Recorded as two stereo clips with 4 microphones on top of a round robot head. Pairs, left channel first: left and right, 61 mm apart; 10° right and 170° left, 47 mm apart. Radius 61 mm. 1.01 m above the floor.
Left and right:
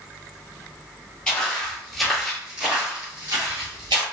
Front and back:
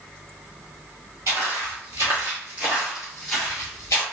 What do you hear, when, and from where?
1.3 s footsteps: 160° left, 1.4 m; by 4.0 s 65° right, 1.2 m